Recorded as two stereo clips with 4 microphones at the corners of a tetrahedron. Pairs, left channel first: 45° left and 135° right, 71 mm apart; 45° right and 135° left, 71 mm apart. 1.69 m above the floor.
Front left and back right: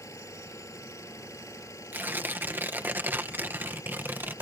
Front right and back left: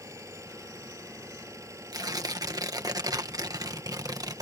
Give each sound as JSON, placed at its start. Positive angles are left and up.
{"t": 0.0, "sound": "an engine running", "azimuth_deg": 90}
{"t": 1.9, "sound": "tearing paper", "azimuth_deg": 165}